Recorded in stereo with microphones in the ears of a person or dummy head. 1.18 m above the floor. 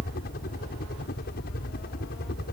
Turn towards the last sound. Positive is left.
turn(degrees=50)  # may be behind; listen again after turning